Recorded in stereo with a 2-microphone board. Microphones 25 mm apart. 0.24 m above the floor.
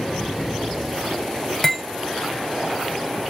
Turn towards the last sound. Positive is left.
turn(degrees=5)  # may be behind; listen again after turning